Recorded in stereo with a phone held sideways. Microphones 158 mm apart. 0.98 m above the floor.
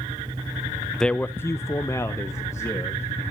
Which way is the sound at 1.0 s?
5° left (ahead or behind).